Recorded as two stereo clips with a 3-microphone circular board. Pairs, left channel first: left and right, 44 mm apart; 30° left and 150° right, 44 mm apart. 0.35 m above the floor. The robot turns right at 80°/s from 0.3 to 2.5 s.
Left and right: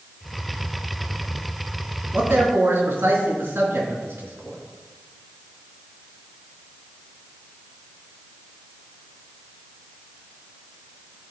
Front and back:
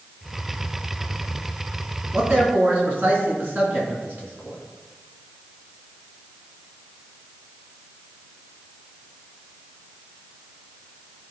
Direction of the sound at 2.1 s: 130° right.